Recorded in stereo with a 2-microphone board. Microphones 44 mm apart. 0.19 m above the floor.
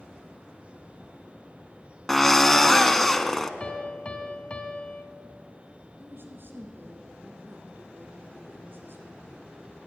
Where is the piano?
20° left (ahead or behind), 0.7 m.